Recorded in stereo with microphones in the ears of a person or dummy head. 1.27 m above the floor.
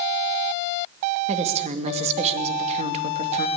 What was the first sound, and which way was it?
A woman speaking, 35° right (ahead or behind).